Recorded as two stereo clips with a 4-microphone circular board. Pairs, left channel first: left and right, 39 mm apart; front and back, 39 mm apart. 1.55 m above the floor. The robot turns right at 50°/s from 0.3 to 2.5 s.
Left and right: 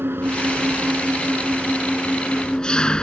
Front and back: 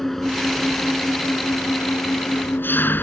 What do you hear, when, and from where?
0.0 s an engine running: 85° right; by 3.0 s 25° left